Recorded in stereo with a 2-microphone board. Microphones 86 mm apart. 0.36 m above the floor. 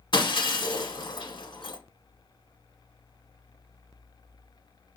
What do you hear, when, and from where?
0.1 s breaking glass: 65° left (ahead or behind), 0.9 m